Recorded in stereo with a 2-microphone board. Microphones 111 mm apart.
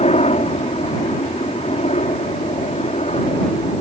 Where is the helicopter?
65° left (ahead or behind).